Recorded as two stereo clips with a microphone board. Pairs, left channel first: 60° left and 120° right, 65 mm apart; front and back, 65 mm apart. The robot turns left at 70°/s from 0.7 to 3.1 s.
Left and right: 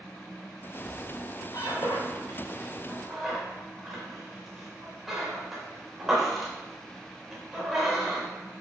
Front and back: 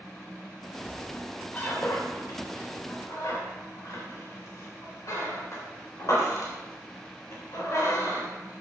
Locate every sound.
0.8 s a squeak: 125° left, 4 m; by 8.3 s 35° right, 4 m